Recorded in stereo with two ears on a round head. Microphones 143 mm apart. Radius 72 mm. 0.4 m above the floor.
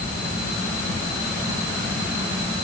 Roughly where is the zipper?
No zipper in this recording.